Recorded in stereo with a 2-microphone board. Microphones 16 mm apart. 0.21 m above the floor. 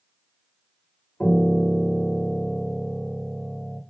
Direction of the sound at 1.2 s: 70° left (ahead or behind).